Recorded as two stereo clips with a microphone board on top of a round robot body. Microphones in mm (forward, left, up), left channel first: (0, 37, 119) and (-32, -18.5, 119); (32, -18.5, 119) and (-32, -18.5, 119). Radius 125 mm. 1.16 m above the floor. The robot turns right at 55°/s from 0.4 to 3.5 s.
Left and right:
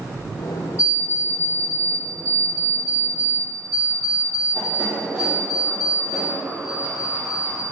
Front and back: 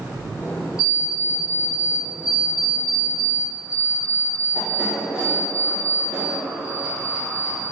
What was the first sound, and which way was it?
An alarm clock, 100° left.